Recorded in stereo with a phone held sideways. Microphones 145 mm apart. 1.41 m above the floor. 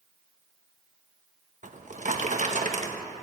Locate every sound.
1.6 s a drawer: 50° right (ahead or behind), 0.9 m